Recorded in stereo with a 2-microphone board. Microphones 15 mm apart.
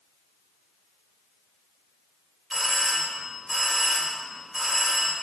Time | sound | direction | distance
2.5 | a doorbell | 25° right (ahead or behind) | 2 m